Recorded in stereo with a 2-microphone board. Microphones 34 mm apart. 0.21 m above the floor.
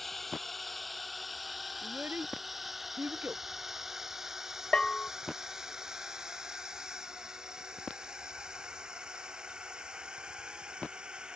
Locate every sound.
0.0 s a drone: 5° left (ahead or behind); by 11.4 s 25° right (ahead or behind)
1.8 s a child speaking: 65° right (ahead or behind)
4.7 s a bell: 25° left (ahead or behind)